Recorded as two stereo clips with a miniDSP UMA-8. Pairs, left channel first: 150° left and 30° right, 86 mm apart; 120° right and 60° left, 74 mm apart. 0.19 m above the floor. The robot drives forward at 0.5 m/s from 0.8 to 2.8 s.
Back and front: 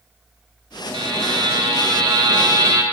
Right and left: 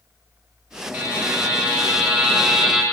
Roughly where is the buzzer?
Ahead.